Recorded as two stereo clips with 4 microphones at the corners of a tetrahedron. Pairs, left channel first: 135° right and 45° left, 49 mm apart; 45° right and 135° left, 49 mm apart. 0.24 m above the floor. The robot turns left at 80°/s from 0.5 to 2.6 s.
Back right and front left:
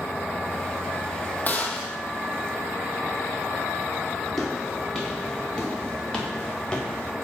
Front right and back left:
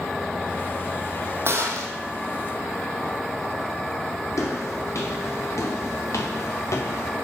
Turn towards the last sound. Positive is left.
turn(degrees=-60)